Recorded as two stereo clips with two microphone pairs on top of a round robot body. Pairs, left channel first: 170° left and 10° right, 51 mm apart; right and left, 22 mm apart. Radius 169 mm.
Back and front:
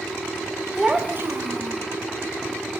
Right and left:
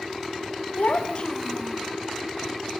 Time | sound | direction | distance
0.8 | a child speaking | 90° right | 0.7 m